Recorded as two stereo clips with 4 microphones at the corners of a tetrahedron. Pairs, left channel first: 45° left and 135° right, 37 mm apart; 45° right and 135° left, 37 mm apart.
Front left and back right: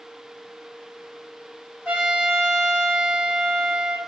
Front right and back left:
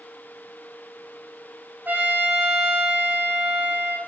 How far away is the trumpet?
About 4 m.